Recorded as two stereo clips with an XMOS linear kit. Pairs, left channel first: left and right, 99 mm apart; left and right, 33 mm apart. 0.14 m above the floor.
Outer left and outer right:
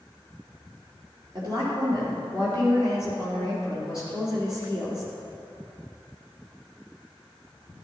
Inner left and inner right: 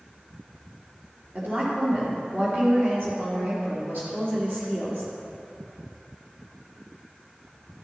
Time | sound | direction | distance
1.4 | a woman speaking | 60° right (ahead or behind) | 3.5 m